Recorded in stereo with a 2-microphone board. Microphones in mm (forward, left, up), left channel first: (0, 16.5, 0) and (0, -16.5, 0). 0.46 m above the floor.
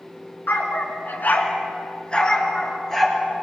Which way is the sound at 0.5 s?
85° left.